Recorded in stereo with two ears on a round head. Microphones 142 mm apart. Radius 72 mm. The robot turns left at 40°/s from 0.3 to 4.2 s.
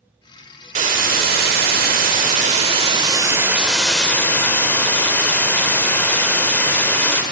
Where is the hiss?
55° right, 1.4 m; by 7.2 s 165° left, 1.4 m.